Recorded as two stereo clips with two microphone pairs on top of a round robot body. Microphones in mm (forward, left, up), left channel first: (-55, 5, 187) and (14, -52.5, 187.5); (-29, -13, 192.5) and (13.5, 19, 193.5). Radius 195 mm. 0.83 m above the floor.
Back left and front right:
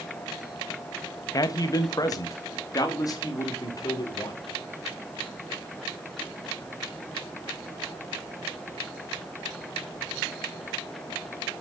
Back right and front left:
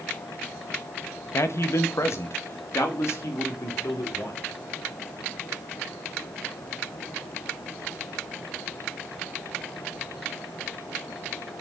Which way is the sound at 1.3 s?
175° right.